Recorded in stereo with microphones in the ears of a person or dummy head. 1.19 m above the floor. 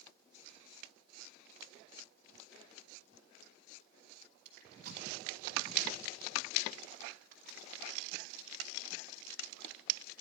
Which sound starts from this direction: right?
Crushing, at 4.5 s.